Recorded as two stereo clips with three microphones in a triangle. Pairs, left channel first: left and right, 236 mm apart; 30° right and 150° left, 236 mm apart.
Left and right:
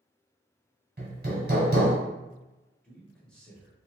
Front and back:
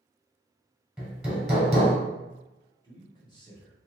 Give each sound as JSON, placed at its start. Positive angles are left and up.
{"t": 1.0, "sound": "hammering", "azimuth_deg": -120, "distance_m": 1.4}
{"t": 2.8, "sound": "a man speaking", "azimuth_deg": 10, "distance_m": 1.0}